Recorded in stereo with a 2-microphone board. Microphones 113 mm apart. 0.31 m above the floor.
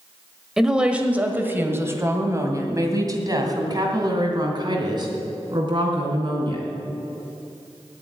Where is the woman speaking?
5° right (ahead or behind), 1.3 m; by 6.7 s 45° right (ahead or behind), 3.5 m.